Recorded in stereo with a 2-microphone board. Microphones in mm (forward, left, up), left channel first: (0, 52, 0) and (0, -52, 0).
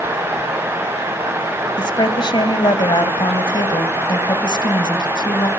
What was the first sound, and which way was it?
A woman speaking, 50° left (ahead or behind).